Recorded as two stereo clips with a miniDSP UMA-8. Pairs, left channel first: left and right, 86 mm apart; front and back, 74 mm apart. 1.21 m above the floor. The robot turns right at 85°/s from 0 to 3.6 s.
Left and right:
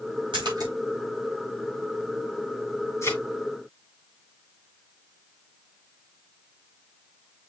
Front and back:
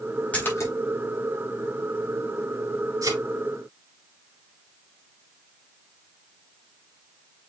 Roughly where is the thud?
Behind left.